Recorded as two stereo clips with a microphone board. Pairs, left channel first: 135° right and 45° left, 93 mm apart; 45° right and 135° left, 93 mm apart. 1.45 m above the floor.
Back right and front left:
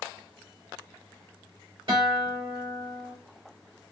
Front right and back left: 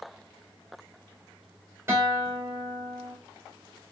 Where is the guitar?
70° left, 1.9 m.